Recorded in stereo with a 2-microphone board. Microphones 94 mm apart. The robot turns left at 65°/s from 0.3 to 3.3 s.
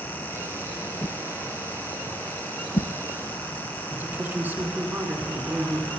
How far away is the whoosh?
About 0.7 m.